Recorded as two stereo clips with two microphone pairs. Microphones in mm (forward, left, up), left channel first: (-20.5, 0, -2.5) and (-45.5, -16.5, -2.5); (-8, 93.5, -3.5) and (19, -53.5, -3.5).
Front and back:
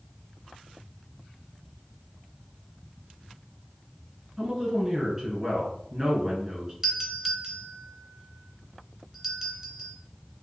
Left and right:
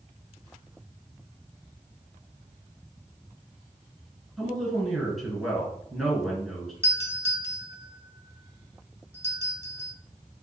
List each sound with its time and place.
4.4 s a woman speaking: 170° right, 1.6 m
6.8 s a doorbell: 95° right, 1.5 m